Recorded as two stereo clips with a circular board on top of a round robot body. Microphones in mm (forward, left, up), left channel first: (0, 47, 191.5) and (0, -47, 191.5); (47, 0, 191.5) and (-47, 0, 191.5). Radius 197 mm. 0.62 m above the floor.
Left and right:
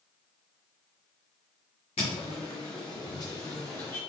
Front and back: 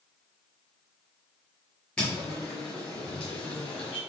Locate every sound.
2.0 s footsteps: 80° left, 0.8 m; by 4.0 s 25° left, 1.4 m